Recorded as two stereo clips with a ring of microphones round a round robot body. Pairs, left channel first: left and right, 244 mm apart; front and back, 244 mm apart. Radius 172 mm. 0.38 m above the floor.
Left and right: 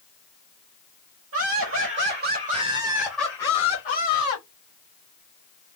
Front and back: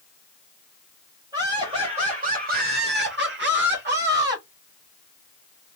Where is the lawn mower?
I don't hear a lawn mower.